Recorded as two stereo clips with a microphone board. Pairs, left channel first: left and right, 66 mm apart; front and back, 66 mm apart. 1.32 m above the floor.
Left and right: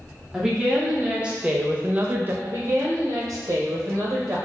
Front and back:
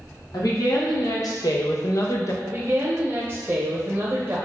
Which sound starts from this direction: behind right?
A woman speaking, at 2.4 s.